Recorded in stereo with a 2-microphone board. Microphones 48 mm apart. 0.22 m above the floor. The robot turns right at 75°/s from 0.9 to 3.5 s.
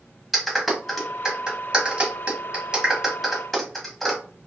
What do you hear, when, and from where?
0.3 s a clap: centre (ahead or behind), 1.0 m; by 4.2 s 5° left (ahead or behind), 1.0 m